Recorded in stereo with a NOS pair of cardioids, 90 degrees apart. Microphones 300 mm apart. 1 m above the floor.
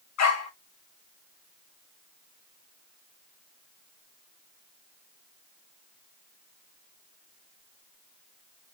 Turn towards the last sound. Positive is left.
turn(degrees=65)